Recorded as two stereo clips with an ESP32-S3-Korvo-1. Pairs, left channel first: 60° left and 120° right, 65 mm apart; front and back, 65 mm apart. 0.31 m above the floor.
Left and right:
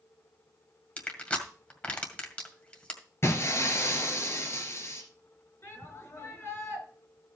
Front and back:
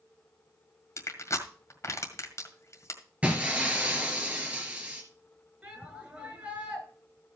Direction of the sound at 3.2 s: 110° left.